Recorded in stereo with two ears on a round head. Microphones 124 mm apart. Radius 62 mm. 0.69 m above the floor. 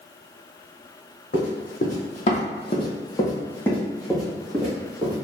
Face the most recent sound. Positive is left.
turn(degrees=-10)  # may be behind; listen again after turning